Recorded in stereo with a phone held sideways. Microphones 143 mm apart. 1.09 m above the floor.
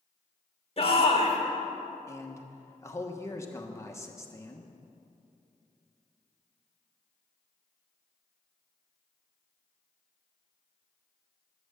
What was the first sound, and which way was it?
A shout, 40° left (ahead or behind).